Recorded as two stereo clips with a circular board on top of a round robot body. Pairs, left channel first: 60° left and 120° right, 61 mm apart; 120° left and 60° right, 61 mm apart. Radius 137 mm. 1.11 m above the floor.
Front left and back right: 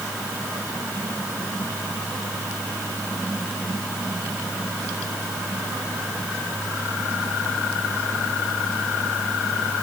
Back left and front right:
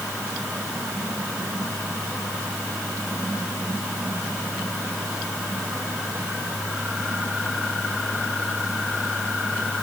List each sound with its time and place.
Only background noise.